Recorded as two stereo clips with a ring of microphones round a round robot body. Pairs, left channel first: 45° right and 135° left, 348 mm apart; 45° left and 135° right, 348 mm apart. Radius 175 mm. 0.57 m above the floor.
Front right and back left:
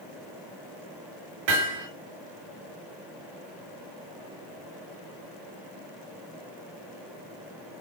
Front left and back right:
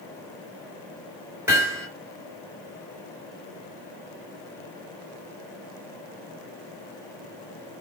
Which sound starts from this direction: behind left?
Hammering, at 1.5 s.